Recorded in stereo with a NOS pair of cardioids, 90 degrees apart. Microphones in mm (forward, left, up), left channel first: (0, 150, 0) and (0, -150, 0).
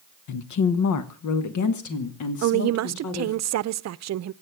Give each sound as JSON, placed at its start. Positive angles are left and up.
{"t": 0.3, "sound": "a woman speaking", "azimuth_deg": 65, "distance_m": 1.0}
{"t": 2.4, "sound": "a woman speaking", "azimuth_deg": -55, "distance_m": 0.7}